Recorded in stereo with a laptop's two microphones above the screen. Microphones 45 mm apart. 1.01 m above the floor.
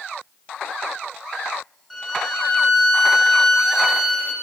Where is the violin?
5° left (ahead or behind), 5 m.